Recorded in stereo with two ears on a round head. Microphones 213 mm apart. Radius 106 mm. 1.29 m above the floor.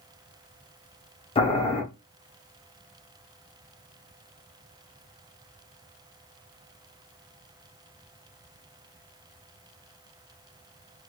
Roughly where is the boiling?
Left.